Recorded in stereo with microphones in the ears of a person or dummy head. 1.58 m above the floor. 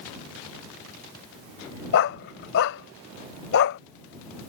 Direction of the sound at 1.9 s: 55° left (ahead or behind).